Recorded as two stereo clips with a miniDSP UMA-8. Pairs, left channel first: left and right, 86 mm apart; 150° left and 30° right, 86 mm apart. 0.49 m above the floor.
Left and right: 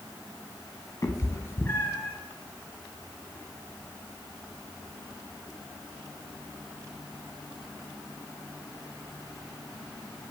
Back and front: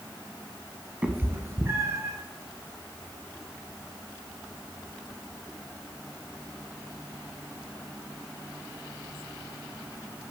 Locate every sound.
1.0 s a cat meowing: 40° left, 0.7 m; by 2.1 s 20° left, 1.6 m